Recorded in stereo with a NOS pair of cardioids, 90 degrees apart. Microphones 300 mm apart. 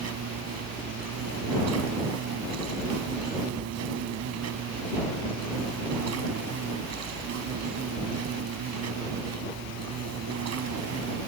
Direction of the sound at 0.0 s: 60° right.